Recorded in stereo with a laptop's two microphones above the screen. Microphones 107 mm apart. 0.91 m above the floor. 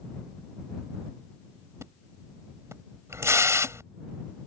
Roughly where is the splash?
Right.